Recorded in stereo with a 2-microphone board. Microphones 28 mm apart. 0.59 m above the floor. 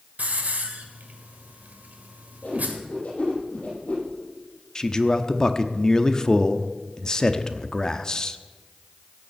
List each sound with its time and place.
0.2 s a hiss: 60° right (ahead or behind), 1.8 m
2.4 s a whoosh: 55° left (ahead or behind), 7.5 m
4.8 s a man speaking: 25° left (ahead or behind), 0.8 m